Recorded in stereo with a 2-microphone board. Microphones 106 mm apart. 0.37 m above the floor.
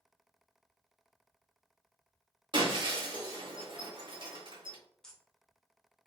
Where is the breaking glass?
45° right (ahead or behind), 1.0 m.